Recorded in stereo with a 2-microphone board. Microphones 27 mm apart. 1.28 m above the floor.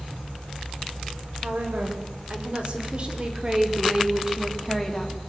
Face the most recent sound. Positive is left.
turn(degrees=10)  # may be behind; listen again after turning